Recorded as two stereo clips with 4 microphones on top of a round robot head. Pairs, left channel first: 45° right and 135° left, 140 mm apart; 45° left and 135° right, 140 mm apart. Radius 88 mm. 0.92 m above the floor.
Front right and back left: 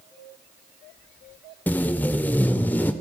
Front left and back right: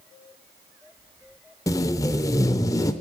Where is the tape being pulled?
15° left, 0.6 m.